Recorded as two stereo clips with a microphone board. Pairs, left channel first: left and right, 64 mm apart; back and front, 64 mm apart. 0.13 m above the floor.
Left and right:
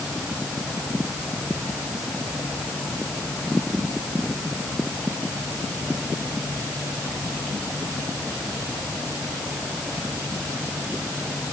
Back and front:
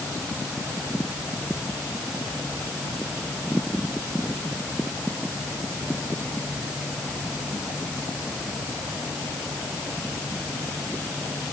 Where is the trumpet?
I don't hear a trumpet.